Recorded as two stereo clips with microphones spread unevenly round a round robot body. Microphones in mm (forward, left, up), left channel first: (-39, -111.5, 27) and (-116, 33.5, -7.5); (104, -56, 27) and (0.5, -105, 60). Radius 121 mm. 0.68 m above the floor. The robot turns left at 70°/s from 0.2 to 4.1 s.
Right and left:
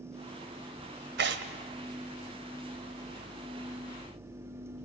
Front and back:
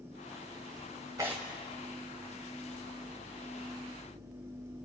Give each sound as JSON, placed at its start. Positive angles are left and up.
{"t": 1.2, "sound": "tearing paper", "azimuth_deg": 130, "distance_m": 1.2}